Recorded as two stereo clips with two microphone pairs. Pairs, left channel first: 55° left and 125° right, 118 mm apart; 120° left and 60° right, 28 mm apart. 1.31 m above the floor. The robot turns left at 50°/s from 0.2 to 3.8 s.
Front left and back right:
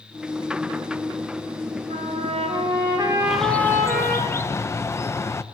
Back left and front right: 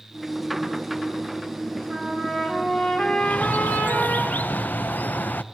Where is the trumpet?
125° right, 4.5 m; by 4.2 s 140° left, 4.5 m.